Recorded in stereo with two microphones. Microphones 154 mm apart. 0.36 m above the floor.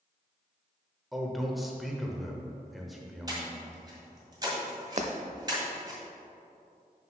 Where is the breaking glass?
50° right (ahead or behind), 0.6 m.